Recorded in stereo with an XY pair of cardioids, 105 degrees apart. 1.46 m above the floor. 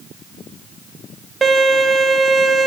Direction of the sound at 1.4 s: 25° right.